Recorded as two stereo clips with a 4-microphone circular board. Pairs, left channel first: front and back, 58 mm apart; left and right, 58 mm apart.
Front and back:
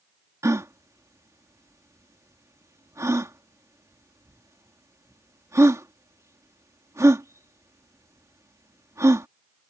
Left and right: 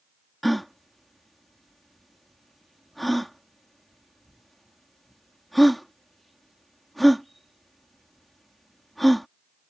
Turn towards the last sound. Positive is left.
turn(degrees=180)